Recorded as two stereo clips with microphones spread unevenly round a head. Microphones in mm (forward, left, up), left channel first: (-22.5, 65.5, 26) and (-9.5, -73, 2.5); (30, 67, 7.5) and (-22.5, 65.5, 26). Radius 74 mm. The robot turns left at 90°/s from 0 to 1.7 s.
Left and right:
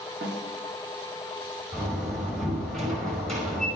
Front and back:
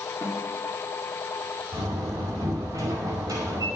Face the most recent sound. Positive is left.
turn(degrees=180)